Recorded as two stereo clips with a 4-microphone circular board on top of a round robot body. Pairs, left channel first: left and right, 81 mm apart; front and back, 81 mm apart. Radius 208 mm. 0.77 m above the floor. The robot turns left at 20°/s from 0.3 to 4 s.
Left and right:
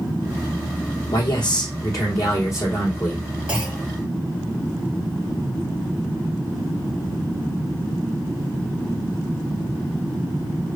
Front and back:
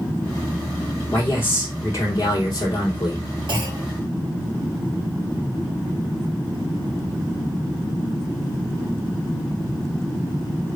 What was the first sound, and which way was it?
A man speaking, 65° left.